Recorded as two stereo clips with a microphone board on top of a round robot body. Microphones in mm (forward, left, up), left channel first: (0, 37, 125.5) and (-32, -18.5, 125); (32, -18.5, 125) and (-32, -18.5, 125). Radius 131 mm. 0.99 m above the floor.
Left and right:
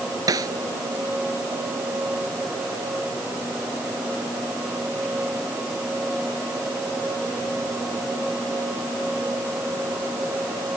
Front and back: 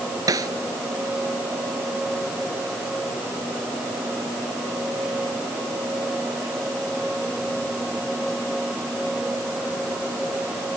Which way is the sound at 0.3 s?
150° right.